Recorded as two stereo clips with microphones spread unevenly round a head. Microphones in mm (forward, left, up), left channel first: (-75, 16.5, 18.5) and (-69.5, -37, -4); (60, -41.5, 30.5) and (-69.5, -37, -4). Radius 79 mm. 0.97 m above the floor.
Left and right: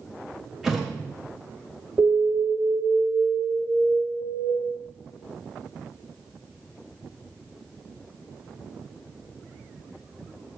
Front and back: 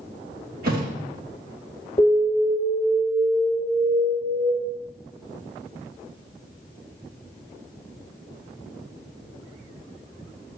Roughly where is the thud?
Behind.